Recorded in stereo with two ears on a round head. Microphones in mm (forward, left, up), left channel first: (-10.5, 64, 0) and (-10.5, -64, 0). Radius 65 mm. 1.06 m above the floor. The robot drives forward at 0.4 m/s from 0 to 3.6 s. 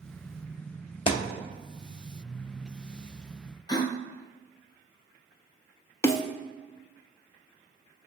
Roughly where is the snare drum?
Centre.